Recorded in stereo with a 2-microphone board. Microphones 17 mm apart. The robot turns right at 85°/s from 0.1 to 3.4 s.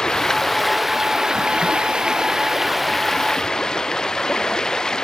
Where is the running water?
130° left; by 5.1 s 50° left.